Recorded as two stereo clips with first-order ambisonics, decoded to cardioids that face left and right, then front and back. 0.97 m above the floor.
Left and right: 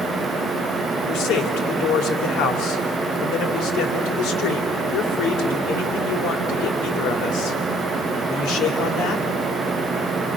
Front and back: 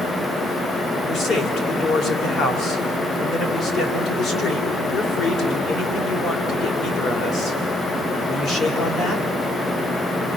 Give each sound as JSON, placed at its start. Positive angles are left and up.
{"t": 1.1, "sound": "a man speaking", "azimuth_deg": 55, "distance_m": 3.0}